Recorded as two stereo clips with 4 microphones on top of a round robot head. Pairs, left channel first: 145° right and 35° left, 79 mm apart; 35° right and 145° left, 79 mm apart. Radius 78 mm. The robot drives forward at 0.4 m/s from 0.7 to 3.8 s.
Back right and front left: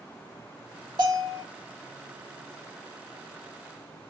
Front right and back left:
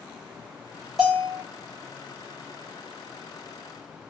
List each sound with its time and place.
1.0 s a bell: 70° left, 1.6 m; by 1.4 s 80° left, 1.6 m